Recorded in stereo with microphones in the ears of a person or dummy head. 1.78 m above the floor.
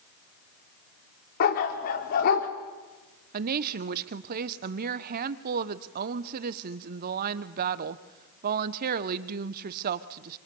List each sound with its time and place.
1.4 s a dog barking: 45° left (ahead or behind), 2 m
3.3 s a woman speaking: 45° right (ahead or behind), 0.9 m